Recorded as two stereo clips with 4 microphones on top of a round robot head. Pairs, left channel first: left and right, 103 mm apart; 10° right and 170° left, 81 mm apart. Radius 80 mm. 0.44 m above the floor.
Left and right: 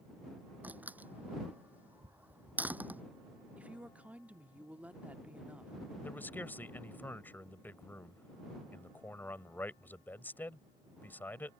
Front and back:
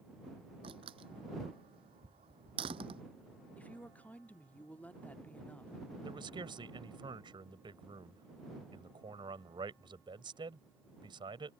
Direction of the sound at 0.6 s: 165° right.